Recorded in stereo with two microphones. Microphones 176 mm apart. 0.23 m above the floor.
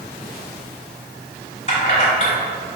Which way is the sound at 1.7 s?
40° left (ahead or behind).